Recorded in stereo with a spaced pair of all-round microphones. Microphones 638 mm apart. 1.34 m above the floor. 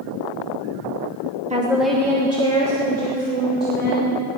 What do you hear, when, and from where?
1.5 s a woman speaking: 10° right (ahead or behind), 1.1 m; by 4.1 s 15° left (ahead or behind), 5 m